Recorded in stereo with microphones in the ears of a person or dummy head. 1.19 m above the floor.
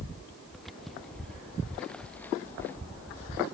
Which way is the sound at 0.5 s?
5° left (ahead or behind).